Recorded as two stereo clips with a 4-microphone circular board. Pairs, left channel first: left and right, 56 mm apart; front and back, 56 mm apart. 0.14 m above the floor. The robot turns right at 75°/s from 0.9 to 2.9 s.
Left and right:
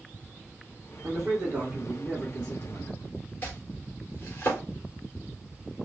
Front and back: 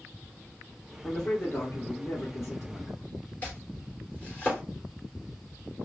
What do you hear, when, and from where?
1.0 s a man speaking: 85° right, 2 m; by 3.0 s 55° left, 2 m
3.4 s chopping: 55° left, 2.5 m